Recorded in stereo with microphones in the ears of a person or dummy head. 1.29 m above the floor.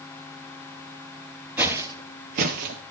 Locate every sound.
1.6 s footsteps: 15° right (ahead or behind), 1.6 m; by 2.8 s 45° right (ahead or behind), 2.0 m